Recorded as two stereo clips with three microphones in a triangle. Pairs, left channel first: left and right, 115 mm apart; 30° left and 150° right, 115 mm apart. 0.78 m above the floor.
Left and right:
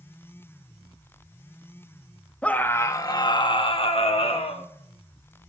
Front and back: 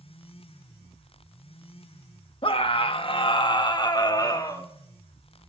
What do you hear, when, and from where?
2.4 s a scream: 15° left, 0.8 m; by 4.7 s 85° left, 1.3 m